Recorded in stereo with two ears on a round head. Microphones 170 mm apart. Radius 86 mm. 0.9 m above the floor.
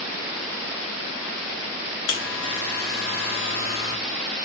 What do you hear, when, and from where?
2.1 s a buzzer: 65° left (ahead or behind), 1.0 m